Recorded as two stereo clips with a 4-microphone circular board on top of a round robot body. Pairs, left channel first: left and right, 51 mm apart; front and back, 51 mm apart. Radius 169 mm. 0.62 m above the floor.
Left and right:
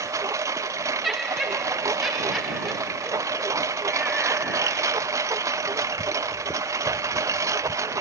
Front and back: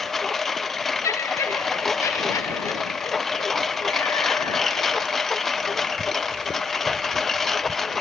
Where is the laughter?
Straight ahead.